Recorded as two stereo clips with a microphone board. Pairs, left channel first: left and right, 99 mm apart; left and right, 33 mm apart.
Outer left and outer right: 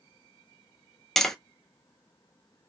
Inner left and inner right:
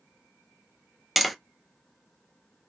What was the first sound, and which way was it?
Tapping, 5° left (ahead or behind).